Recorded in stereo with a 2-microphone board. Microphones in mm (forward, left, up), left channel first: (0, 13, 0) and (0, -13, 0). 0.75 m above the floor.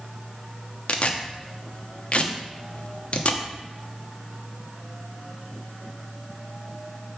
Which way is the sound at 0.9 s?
50° left (ahead or behind).